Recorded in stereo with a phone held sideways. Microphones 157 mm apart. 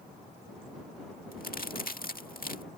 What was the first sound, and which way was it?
A crack, 65° left (ahead or behind).